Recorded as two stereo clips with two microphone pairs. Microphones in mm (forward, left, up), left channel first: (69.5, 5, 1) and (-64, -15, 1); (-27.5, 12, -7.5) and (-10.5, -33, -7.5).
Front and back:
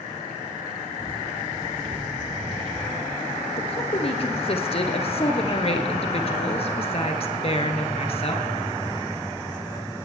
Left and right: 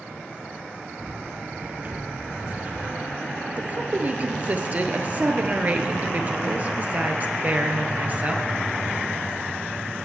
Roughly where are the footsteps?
Behind right.